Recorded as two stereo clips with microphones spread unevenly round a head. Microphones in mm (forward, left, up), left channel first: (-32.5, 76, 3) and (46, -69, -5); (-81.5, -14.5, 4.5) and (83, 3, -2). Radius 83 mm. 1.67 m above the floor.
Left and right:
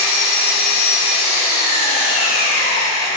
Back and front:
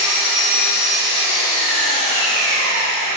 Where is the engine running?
170° left, 5.5 m.